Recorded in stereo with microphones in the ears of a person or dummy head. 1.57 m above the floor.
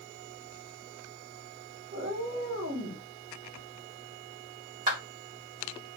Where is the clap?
40° right (ahead or behind), 1.8 m.